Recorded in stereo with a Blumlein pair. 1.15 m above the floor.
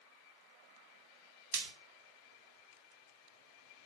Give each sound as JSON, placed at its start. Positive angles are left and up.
{"t": 1.5, "sound": "frying", "azimuth_deg": -50, "distance_m": 0.8}